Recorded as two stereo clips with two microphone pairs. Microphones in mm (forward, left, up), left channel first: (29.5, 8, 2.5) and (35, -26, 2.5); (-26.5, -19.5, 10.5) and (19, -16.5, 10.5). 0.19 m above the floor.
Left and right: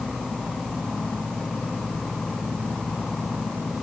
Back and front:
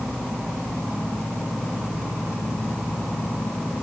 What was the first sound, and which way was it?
Only background noise.